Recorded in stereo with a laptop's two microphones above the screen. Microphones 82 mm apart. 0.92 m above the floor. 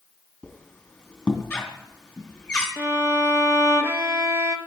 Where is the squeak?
10° left (ahead or behind), 2.5 m.